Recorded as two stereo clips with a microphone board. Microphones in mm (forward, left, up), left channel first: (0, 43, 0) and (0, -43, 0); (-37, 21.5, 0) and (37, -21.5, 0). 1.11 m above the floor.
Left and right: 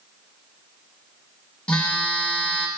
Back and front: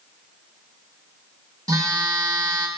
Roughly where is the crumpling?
No crumpling in this recording.